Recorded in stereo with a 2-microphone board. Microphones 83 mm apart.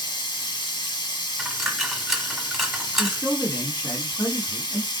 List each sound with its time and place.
0.0 s running water: 75° left (ahead or behind), 0.9 m
1.4 s a dropped coin: 5° right (ahead or behind), 0.7 m
3.0 s a man speaking: 25° left (ahead or behind), 2 m